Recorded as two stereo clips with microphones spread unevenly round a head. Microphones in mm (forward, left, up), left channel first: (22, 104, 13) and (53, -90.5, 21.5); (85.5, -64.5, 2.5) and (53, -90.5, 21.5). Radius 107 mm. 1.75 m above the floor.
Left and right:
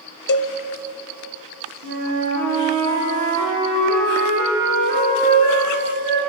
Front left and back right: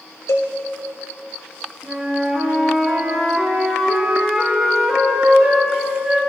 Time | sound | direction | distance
0.3 | a cowbell | 95° left | 0.5 m
1.8 | a flute | 60° right | 4 m